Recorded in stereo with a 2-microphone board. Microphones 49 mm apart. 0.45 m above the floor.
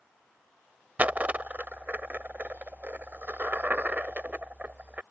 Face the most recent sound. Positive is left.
turn(degrees=-35)  # may be behind; listen again after turning